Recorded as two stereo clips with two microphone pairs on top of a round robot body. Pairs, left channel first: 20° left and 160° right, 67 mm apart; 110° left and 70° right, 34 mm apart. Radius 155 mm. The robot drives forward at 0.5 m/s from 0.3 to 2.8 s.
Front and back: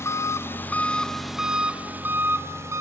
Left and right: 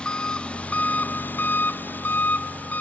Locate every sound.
0.0 s an engine running: 50° left, 0.7 m; by 2.8 s 150° left, 1.1 m